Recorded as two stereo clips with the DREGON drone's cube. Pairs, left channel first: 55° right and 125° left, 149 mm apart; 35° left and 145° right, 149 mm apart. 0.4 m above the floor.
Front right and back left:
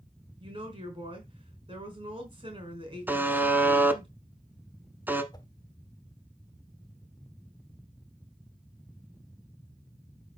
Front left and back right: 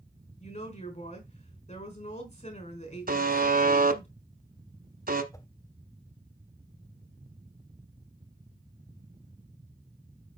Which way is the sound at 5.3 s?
15° right.